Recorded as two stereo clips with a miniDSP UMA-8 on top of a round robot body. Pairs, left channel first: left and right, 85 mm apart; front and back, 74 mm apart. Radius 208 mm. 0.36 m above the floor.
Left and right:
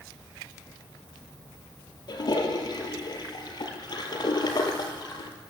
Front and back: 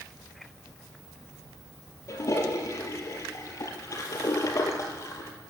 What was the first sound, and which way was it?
A toilet flushing, 50° left.